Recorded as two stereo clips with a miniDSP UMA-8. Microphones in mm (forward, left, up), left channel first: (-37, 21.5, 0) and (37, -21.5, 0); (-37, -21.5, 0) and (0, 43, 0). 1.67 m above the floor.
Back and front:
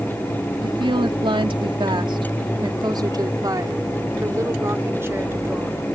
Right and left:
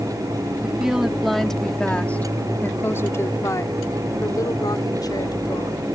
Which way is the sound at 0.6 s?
15° right.